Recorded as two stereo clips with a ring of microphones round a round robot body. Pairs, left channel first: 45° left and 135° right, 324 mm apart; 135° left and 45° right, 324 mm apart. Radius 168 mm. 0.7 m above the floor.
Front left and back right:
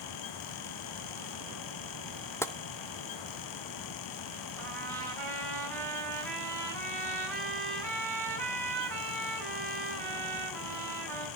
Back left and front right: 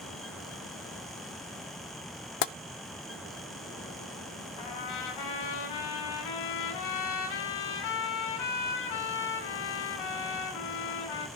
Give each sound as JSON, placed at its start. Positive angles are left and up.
{"t": 2.4, "sound": "tapping", "azimuth_deg": 125, "distance_m": 0.6}
{"t": 4.6, "sound": "a trumpet", "azimuth_deg": 130, "distance_m": 8.5}